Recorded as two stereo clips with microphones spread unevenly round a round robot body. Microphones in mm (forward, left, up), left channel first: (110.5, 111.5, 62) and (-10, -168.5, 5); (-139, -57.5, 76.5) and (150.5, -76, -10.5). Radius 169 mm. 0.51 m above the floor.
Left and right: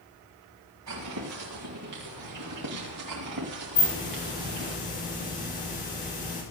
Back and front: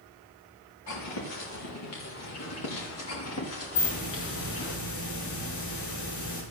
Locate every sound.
0.9 s footsteps: 155° right, 6.5 m; by 4.8 s 140° right, 5 m
3.8 s a hiss: 135° left, 5 m